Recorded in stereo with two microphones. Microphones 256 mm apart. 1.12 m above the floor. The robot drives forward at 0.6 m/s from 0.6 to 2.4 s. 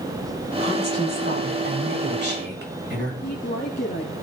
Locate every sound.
0.6 s a woman speaking: 40° right (ahead or behind), 8 m; by 3.1 s 45° right (ahead or behind), 7 m
3.2 s a woman speaking: 40° left (ahead or behind), 2.5 m